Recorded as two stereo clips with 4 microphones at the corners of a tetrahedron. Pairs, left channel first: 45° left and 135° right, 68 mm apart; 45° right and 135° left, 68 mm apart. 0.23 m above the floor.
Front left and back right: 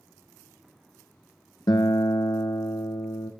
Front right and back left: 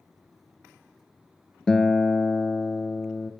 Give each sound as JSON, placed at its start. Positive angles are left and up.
{"t": 1.7, "sound": "a guitar", "azimuth_deg": 35, "distance_m": 0.6}